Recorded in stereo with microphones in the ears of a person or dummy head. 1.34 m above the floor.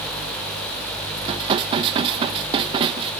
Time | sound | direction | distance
1.2 | dishes clattering | 30° right (ahead or behind) | 0.6 m